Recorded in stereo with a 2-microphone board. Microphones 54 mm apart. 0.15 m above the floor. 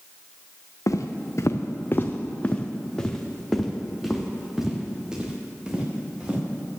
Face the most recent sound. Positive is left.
turn(degrees=-20)  # may be behind; listen again after turning